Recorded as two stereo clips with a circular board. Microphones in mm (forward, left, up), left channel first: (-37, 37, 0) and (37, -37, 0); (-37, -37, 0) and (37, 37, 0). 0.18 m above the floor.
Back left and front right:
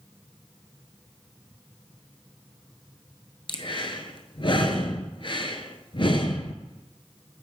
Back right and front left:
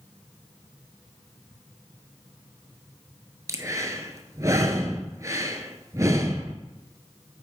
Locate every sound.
3.5 s breathing: 100° left, 0.7 m